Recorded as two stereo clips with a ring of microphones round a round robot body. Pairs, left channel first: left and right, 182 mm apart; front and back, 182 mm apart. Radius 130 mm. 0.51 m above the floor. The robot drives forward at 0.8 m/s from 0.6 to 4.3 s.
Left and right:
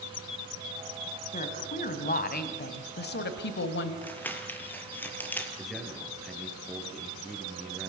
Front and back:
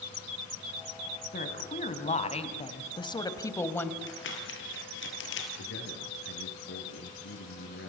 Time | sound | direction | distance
1.3 | a woman speaking | 45° left | 3.5 m
4.0 | crumpling | 10° left | 4.5 m
5.6 | a man speaking | straight ahead | 8 m